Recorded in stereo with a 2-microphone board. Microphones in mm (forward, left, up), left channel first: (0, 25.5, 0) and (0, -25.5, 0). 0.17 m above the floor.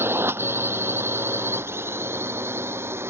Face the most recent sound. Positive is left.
turn(degrees=-55)  # may be behind; listen again after turning